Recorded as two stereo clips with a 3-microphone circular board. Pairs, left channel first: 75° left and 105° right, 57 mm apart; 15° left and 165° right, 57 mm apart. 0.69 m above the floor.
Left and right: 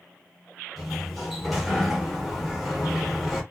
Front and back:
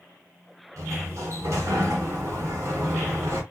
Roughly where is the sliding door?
Behind.